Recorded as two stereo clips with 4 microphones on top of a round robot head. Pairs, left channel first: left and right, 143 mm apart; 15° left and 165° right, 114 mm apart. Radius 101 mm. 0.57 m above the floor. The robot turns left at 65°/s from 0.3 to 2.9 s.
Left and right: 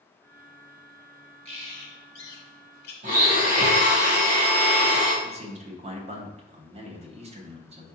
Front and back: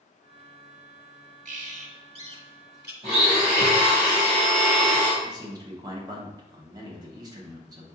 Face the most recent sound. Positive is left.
turn(degrees=-120)